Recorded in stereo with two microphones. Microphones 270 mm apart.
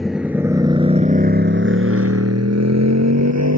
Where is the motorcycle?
Centre (ahead or behind); by 3.6 s 85° right.